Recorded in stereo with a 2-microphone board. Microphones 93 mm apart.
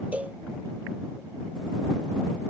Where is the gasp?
No gasp in this recording.